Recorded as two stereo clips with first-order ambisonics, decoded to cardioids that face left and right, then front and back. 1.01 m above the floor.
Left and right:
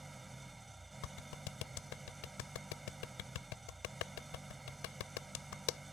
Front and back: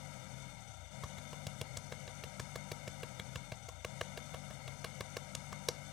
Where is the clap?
80° left.